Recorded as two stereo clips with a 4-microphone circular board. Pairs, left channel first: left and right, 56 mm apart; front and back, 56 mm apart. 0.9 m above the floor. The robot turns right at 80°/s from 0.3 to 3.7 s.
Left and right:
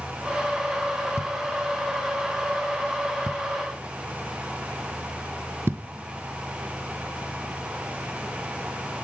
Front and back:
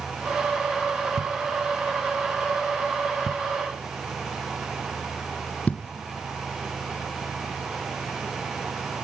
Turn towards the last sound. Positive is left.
turn(degrees=-55)